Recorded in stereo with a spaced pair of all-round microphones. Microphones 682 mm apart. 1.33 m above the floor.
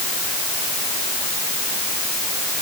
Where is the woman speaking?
I don't hear a woman speaking.